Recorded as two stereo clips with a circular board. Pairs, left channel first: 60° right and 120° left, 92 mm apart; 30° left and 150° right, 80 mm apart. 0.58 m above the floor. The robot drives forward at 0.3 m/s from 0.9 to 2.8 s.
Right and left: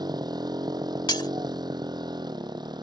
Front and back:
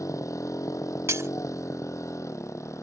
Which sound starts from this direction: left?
A motorcycle, at 0.0 s.